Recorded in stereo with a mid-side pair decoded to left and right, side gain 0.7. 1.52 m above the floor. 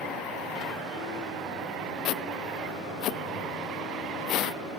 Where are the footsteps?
55° left.